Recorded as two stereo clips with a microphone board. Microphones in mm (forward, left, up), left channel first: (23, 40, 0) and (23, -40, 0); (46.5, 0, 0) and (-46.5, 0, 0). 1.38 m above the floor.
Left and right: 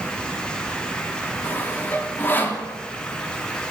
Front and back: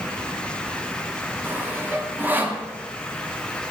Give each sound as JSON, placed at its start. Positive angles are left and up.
{"t": 1.4, "sound": "sawing", "azimuth_deg": 130, "distance_m": 0.5}